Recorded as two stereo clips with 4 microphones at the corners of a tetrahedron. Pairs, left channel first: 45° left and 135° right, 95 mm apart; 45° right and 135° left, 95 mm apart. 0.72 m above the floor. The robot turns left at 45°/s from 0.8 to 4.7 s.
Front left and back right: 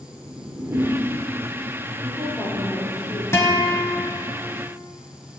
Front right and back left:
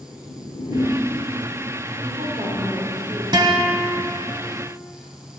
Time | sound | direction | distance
0.3 | a whoosh | 75° right | 0.7 m
2.0 | a woman speaking | 150° left | 2 m
3.3 | a guitar | 105° left | 1.1 m